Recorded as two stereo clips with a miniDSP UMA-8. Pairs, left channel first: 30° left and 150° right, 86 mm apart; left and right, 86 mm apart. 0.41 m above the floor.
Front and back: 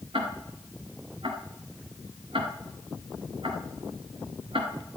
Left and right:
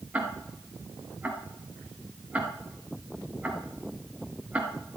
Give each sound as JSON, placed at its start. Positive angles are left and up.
{"t": 0.1, "sound": "ticking", "azimuth_deg": -160, "distance_m": 2.0}